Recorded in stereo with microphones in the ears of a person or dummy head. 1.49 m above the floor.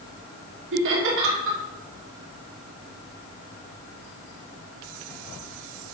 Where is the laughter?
75° right (ahead or behind), 3 m.